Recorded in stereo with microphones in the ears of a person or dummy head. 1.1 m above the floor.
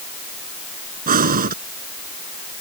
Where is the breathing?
45° right (ahead or behind).